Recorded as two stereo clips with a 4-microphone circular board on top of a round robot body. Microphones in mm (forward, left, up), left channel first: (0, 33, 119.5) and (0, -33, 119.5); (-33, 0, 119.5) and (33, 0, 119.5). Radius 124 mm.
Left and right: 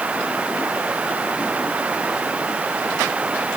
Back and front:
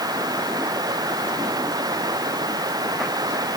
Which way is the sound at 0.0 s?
15° right.